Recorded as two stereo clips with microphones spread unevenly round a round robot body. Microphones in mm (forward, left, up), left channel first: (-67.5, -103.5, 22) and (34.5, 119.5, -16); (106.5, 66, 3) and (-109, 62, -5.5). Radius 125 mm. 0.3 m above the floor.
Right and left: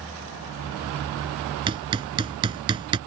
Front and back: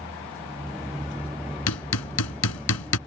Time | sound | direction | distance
1.7 | hammering | 5° right | ?